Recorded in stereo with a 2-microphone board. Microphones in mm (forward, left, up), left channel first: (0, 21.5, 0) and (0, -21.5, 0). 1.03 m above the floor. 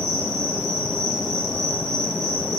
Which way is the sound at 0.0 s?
5° left (ahead or behind).